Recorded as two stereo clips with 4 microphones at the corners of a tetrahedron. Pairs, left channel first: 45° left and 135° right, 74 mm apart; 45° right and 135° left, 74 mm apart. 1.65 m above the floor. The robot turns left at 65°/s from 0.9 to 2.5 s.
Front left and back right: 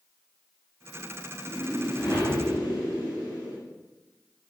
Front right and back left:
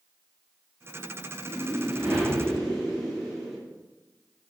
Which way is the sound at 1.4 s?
105° left.